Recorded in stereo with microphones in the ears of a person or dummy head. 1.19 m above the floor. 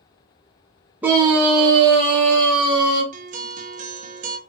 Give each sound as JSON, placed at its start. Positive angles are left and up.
{"t": 1.0, "sound": "a scream", "side_deg": -10, "distance_m": 0.5}
{"t": 3.1, "sound": "a guitar", "side_deg": -40, "distance_m": 0.5}